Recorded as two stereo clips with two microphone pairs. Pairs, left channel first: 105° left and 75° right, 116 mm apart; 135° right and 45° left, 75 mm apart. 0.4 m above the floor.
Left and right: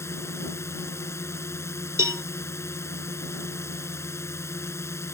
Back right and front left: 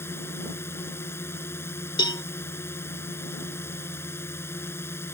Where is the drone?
175° left.